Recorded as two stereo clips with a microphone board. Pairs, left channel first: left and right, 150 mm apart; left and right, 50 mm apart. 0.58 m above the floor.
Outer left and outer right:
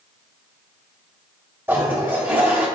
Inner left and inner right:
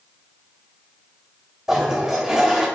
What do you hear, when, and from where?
1.7 s a toilet flushing: 15° right (ahead or behind), 1.0 m